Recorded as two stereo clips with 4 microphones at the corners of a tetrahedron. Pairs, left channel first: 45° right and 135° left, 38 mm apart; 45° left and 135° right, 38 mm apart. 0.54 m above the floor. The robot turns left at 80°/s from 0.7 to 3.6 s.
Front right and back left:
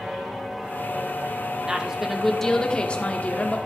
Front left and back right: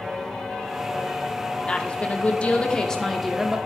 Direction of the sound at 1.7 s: 85° left.